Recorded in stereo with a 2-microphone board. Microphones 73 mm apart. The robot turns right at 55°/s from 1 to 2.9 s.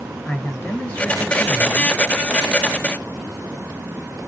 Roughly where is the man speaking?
Behind left.